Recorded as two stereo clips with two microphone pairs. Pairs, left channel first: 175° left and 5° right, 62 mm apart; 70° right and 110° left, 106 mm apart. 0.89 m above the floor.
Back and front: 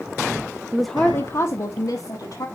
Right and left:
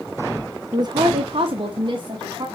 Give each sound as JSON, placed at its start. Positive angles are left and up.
{"t": 0.7, "sound": "a woman speaking", "azimuth_deg": 70, "distance_m": 0.6}